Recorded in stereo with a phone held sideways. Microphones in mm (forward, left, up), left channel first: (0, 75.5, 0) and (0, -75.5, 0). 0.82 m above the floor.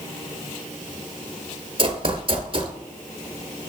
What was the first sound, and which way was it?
Running footsteps, 40° right (ahead or behind).